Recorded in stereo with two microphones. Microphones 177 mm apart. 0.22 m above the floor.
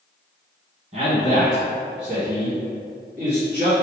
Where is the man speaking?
40° right (ahead or behind), 1.5 m; by 3.7 s 45° right (ahead or behind), 1.7 m.